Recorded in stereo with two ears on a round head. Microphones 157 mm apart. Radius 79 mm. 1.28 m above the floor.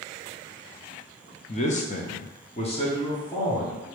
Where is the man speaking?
35° left (ahead or behind), 0.7 m; by 3.9 s 20° left (ahead or behind), 1.3 m.